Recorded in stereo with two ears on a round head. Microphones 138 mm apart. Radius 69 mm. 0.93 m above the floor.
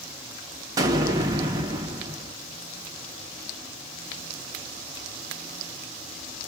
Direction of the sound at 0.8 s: 25° right (ahead or behind).